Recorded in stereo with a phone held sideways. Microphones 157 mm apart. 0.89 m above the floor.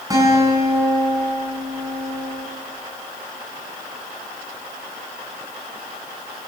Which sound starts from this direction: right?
A guitar, at 0.1 s.